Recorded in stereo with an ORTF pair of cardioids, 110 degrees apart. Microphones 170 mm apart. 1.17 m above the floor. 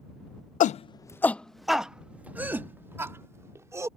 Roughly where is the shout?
Ahead left.